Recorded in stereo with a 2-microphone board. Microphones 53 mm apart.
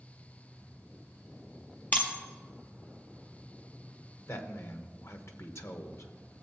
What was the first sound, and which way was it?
Breaking glass, 35° left (ahead or behind).